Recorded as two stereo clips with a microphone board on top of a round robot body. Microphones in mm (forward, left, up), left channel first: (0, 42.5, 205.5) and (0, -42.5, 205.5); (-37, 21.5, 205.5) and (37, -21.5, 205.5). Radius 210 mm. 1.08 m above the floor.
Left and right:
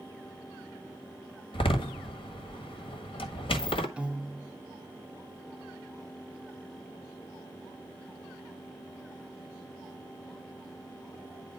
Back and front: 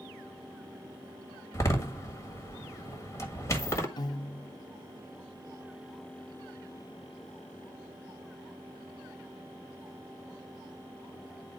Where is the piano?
170° right, 0.8 m.